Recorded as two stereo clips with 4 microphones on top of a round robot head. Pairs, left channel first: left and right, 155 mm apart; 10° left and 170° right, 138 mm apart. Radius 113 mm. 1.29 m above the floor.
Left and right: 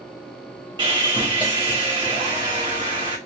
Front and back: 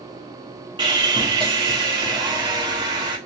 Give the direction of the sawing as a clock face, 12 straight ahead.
4 o'clock.